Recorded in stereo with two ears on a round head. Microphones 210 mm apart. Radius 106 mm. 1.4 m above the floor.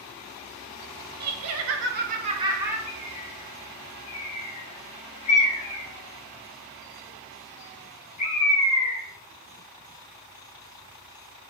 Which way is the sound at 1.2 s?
80° right.